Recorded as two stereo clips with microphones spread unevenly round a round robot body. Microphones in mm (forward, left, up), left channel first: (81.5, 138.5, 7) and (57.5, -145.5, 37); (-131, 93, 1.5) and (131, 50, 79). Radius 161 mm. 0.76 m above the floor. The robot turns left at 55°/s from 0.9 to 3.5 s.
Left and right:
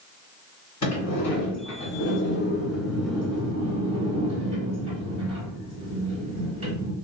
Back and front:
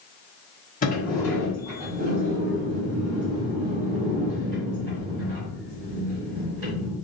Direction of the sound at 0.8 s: 120° left.